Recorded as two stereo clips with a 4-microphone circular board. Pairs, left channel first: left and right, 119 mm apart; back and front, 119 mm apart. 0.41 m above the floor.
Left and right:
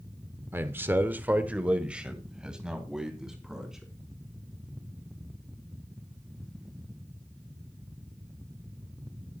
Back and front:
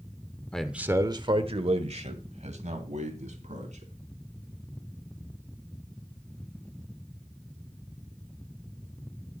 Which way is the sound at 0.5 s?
115° right.